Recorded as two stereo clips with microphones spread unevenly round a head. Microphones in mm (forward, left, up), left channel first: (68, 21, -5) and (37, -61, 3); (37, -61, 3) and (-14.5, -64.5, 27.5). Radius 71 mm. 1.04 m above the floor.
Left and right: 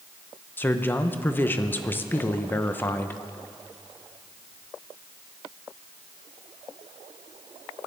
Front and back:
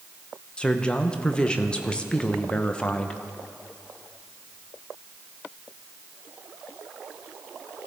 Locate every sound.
0.6 s a man speaking: 25° left, 0.8 m